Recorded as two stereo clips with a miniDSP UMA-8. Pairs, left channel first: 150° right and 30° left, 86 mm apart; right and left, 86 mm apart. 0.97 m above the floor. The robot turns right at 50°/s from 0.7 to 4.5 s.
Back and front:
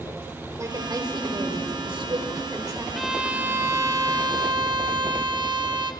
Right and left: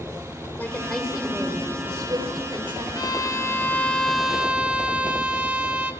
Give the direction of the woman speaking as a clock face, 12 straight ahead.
1 o'clock.